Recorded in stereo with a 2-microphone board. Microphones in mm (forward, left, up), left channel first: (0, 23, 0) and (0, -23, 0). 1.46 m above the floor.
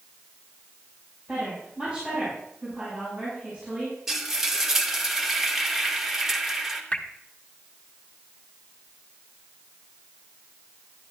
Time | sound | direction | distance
1.3 | a woman speaking | 25° right (ahead or behind) | 5 m
4.1 | frying | 10° right (ahead or behind) | 1.1 m
6.9 | dripping | 30° left (ahead or behind) | 1.0 m